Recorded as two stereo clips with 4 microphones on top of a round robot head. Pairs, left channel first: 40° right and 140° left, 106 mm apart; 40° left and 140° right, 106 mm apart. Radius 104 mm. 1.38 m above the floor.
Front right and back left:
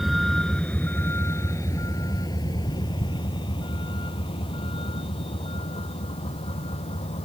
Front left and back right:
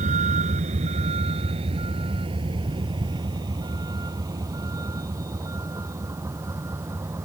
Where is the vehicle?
130° right; by 7.3 s 75° right.